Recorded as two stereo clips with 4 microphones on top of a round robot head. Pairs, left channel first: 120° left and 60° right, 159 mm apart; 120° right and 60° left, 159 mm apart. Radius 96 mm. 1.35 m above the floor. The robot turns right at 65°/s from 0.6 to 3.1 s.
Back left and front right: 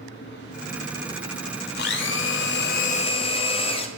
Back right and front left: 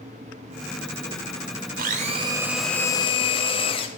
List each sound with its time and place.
1.8 s a blender: 95° left, 0.6 m; by 3.9 s straight behind, 0.6 m